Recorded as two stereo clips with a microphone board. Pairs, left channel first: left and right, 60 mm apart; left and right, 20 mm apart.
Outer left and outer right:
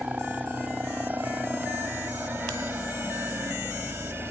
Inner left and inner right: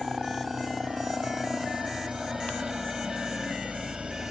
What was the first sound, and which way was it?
A helicopter, 30° right (ahead or behind).